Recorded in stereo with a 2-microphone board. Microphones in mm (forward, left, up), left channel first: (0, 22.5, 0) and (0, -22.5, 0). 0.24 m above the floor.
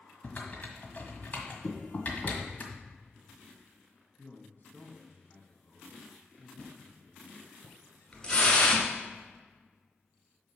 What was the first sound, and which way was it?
Typing on a keyboard, 35° left (ahead or behind).